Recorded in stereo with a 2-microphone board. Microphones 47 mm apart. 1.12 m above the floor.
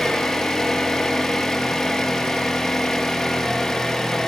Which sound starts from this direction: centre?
An engine running, at 0.0 s.